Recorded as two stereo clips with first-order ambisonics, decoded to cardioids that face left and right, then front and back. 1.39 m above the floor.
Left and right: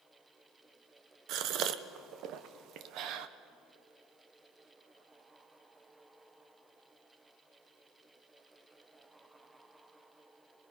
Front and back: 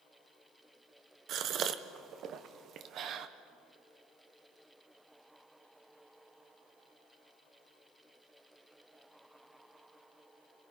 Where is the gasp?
130° right, 0.8 m.